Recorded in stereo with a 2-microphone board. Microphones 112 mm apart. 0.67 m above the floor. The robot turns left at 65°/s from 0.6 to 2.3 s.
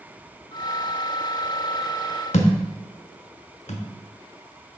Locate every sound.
2.3 s a thud: 85° left, 1.0 m